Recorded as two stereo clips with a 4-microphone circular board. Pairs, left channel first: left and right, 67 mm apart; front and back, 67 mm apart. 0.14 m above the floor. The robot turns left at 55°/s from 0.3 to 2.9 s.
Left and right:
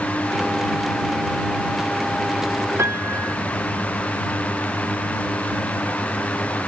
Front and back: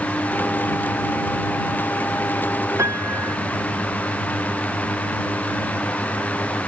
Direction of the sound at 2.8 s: 135° right.